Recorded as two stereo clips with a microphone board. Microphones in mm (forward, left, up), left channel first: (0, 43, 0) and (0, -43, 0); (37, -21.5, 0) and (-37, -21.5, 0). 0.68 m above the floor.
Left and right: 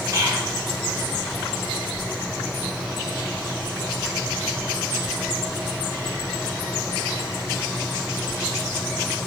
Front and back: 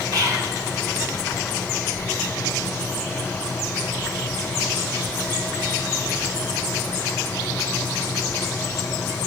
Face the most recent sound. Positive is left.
turn(degrees=-140)